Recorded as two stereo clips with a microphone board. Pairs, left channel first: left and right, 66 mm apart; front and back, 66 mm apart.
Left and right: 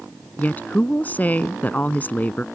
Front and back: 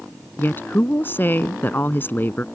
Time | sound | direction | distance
0.4 | a woman speaking | 40° left | ?